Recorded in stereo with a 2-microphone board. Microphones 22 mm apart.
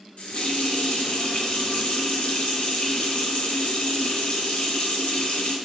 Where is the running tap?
65° left (ahead or behind), 0.8 m.